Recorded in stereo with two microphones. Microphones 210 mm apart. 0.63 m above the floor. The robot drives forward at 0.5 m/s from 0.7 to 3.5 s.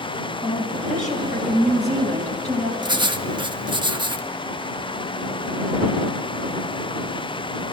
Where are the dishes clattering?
I don't hear dishes clattering.